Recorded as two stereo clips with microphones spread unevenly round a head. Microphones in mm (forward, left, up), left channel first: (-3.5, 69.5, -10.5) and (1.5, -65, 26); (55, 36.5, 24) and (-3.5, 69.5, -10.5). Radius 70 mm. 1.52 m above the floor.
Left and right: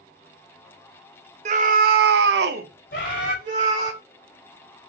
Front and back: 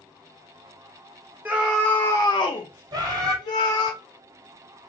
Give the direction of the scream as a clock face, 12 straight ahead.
4 o'clock.